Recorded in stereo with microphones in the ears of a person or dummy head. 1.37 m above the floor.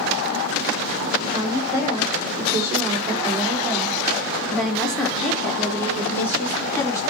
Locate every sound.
1.2 s a woman speaking: 20° right (ahead or behind), 5.5 m; by 7.0 s 20° left (ahead or behind), 4.5 m